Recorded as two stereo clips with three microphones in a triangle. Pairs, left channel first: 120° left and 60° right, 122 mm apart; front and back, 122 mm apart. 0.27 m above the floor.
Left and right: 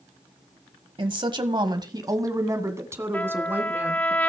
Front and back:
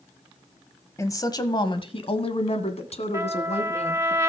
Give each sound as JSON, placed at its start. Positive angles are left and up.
{"t": 1.0, "sound": "a woman speaking", "azimuth_deg": -55, "distance_m": 1.4}
{"t": 3.1, "sound": "a trumpet", "azimuth_deg": 175, "distance_m": 0.7}